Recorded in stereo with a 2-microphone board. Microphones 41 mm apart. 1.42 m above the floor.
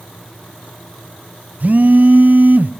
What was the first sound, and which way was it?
A phone buzzing, 40° right (ahead or behind).